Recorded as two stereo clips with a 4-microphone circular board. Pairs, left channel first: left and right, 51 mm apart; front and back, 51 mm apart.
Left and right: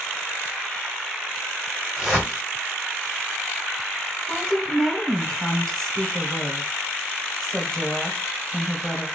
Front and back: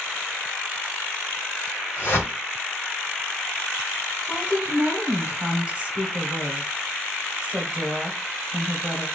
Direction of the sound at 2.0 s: 10° right.